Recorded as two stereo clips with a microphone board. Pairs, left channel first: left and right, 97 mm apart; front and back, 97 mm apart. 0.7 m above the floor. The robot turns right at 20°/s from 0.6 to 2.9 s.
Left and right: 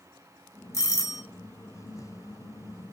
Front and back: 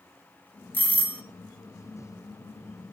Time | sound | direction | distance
0.7 | a doorbell | 60° left | 1.2 m